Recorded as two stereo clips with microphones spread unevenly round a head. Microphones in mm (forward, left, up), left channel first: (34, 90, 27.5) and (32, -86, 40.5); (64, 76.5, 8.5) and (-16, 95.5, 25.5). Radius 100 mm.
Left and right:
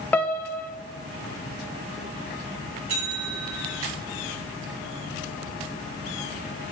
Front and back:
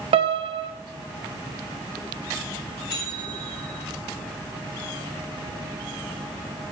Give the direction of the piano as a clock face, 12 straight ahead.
6 o'clock.